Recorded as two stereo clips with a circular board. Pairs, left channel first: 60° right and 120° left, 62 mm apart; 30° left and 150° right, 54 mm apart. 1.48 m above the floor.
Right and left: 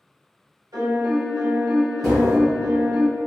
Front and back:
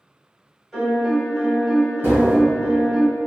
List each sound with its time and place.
0.7 s a piano: 125° left, 1.1 m
2.0 s tapping: 150° right, 1.5 m